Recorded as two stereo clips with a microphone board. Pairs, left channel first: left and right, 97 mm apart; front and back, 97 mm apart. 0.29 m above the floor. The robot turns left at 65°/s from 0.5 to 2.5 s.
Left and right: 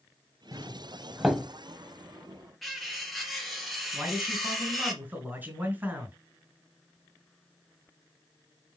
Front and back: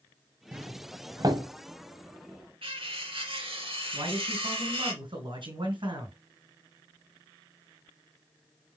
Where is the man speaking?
160° right, 4 m.